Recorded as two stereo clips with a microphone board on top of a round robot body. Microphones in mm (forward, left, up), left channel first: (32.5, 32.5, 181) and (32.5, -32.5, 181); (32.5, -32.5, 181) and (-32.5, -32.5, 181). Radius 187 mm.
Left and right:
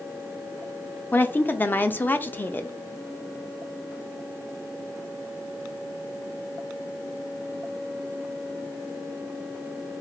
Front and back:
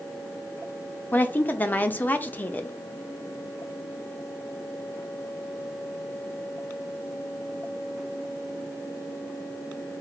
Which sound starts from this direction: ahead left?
A woman speaking, at 1.1 s.